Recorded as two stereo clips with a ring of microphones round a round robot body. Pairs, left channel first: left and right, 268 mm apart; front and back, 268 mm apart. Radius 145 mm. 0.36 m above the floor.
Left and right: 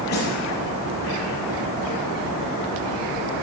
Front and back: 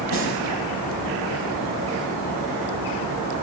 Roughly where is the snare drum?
Ahead left.